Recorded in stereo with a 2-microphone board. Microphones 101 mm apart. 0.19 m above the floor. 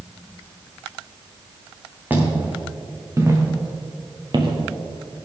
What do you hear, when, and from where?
2.1 s footsteps: 15° right (ahead or behind), 4.5 m; by 5.2 s 70° right (ahead or behind), 2.5 m